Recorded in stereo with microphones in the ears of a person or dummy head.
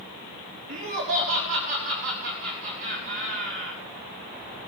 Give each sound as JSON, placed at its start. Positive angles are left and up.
{"t": 0.7, "sound": "laughter", "side_deg": -40, "distance_m": 4.0}